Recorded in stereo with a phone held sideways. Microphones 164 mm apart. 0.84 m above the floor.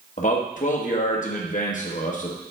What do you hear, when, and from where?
0.2 s a man speaking: 50° left (ahead or behind), 0.9 m